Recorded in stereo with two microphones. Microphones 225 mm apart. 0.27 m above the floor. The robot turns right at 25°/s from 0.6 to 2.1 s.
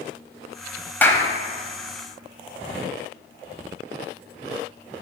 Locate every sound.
1.0 s a clap: 10° left (ahead or behind), 1.0 m